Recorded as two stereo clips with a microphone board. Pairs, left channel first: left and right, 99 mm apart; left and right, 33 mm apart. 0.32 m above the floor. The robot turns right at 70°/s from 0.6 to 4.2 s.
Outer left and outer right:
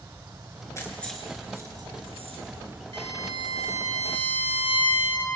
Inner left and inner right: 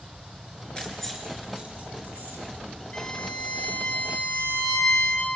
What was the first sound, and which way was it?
Keys jangling, 30° left (ahead or behind).